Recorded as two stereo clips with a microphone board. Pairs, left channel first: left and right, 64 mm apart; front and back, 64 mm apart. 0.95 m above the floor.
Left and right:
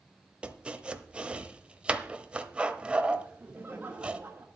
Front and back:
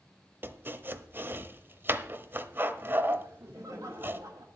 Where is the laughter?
155° right, 1.3 m.